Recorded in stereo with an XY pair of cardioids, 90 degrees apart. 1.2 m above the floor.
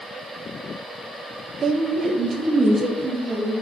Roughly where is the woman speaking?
Ahead right.